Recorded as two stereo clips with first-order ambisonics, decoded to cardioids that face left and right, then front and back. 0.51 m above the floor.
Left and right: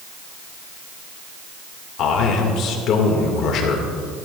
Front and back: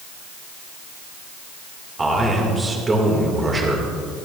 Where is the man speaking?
110° left, 1.8 m.